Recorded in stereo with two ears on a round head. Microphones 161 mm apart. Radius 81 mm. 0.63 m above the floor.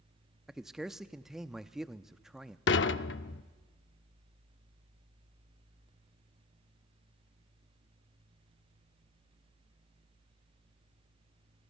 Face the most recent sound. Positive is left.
turn(degrees=70)  # may be behind; listen again after turning